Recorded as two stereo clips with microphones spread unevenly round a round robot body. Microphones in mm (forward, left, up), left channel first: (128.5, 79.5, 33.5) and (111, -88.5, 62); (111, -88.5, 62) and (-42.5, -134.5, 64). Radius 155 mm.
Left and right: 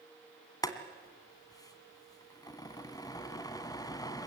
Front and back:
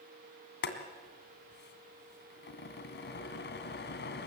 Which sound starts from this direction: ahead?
Boiling, at 0.6 s.